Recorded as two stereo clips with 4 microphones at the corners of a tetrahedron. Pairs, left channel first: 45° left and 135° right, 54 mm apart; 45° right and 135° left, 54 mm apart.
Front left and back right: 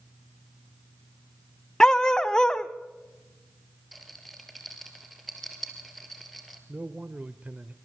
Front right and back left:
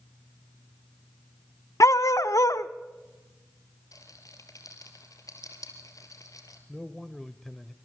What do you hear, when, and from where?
1.8 s a dog barking: 30° right, 0.7 m
3.9 s a rattle: 45° right, 2.5 m
6.7 s a man speaking: 120° right, 0.9 m